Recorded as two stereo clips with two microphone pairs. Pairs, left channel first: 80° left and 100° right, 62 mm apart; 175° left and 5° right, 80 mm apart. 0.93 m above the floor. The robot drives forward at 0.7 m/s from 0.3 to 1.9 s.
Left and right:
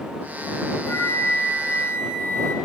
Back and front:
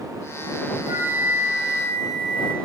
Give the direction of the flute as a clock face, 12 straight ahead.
11 o'clock.